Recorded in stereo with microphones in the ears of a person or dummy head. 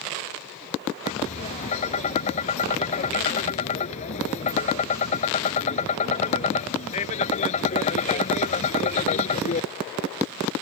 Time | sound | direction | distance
1.1 | tapping | 35° left (ahead or behind) | ?